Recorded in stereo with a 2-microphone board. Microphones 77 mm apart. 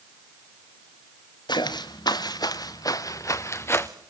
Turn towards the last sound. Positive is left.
turn(degrees=30)  # may be behind; listen again after turning